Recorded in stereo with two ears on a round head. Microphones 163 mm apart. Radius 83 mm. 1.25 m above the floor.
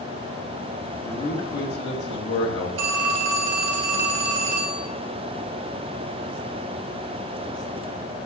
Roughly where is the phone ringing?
Right.